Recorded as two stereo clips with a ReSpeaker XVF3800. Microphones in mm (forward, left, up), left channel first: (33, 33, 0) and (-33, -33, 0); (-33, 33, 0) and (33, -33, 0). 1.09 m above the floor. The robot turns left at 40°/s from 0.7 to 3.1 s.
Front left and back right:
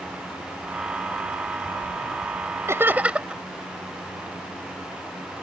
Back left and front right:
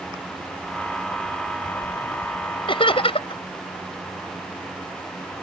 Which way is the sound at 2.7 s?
165° left.